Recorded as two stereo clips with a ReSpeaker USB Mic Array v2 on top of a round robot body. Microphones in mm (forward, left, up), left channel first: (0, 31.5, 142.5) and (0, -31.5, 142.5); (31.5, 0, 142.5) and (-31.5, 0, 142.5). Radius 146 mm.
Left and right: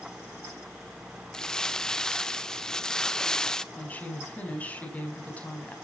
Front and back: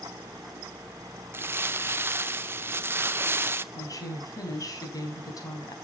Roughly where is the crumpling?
Behind.